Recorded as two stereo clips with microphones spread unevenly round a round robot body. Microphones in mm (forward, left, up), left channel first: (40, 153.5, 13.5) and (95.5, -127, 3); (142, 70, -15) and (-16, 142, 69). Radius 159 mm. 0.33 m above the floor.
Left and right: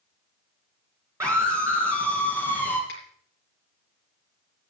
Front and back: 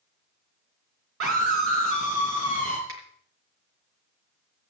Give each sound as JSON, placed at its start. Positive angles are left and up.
{"t": 1.2, "sound": "a scream", "azimuth_deg": -160, "distance_m": 4.0}
{"t": 2.9, "sound": "a finger snap", "azimuth_deg": 160, "distance_m": 6.5}